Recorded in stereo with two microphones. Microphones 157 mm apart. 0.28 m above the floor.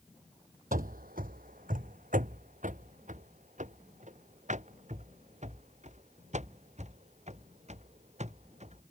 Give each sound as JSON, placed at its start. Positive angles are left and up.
{"t": 0.7, "sound": "running footsteps", "side_deg": -70}